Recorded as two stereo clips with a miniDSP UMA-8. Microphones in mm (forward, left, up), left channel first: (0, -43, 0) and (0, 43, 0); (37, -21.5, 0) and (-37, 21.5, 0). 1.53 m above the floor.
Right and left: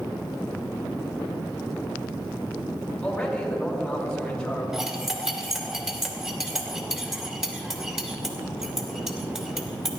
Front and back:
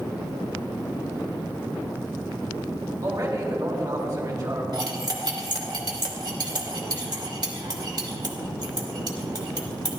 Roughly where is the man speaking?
Behind.